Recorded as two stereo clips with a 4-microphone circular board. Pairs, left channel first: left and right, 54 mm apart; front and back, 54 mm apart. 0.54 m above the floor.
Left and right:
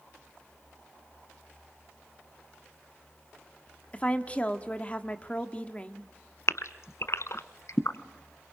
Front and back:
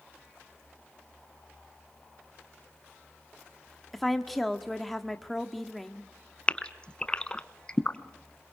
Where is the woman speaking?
85° left, 1.2 m.